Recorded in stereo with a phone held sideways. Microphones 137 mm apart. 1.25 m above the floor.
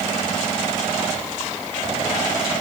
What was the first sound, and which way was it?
Only background noise.